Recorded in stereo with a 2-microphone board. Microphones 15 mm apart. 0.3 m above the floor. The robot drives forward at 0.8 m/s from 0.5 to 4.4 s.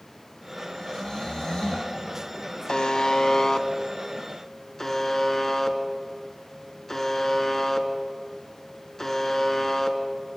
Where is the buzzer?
55° left (ahead or behind), 1.0 m; by 10.0 s 25° left (ahead or behind), 1.9 m.